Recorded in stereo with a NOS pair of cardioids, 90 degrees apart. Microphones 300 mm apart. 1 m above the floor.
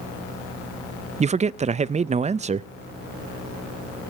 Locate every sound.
1.2 s a man speaking: 25° right, 0.5 m